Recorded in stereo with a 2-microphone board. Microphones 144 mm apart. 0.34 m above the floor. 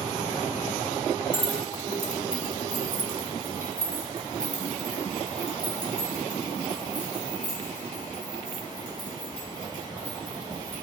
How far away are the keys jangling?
About 1.3 m.